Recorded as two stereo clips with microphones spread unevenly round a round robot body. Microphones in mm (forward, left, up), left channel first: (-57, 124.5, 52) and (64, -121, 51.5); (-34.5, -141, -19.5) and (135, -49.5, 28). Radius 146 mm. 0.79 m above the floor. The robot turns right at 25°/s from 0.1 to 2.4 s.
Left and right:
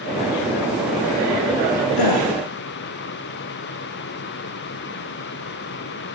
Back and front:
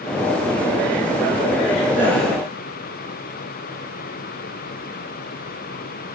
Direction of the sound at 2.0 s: 115° left.